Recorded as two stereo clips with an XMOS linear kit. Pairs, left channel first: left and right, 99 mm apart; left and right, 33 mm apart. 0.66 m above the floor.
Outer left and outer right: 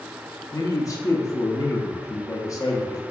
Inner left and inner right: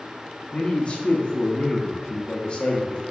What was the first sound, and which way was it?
A man speaking, 35° left (ahead or behind).